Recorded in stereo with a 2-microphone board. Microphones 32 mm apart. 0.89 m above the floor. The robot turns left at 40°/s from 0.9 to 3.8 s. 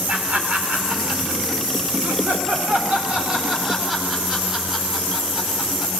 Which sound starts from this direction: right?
Laughter, at 0.1 s.